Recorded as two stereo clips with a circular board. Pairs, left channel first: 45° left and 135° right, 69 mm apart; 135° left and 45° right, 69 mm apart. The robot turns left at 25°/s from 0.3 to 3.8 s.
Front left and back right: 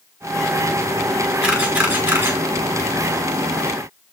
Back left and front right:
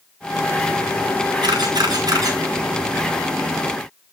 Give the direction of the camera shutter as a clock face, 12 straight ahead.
2 o'clock.